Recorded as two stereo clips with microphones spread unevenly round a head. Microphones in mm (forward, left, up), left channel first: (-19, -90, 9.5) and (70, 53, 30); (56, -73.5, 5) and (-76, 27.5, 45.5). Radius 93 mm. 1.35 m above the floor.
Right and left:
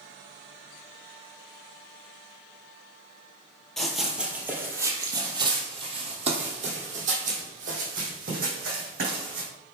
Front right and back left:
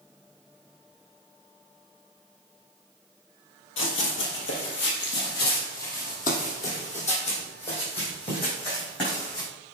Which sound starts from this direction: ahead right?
Running footsteps, at 3.8 s.